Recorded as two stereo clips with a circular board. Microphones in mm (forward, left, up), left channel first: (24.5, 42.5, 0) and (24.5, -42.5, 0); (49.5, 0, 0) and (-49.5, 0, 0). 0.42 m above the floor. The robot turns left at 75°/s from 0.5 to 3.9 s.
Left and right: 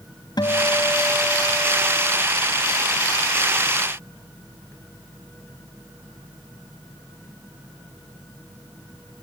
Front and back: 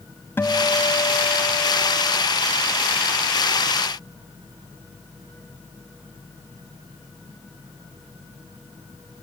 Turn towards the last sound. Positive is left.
turn(degrees=170)